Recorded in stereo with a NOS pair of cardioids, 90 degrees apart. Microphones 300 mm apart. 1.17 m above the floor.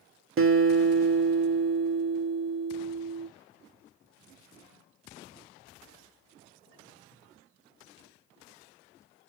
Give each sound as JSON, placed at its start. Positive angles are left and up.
{"t": 0.4, "sound": "a guitar", "azimuth_deg": -45, "distance_m": 1.3}